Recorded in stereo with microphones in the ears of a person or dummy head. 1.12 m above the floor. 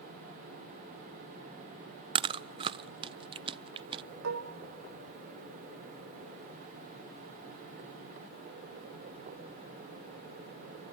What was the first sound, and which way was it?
Chewing, 30° right (ahead or behind).